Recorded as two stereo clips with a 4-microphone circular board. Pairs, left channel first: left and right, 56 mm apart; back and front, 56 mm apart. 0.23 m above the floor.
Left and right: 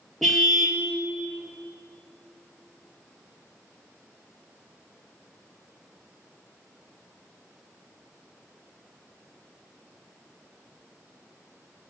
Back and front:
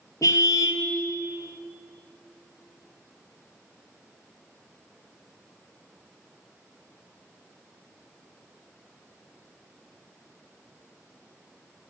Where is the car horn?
175° left, 2.5 m.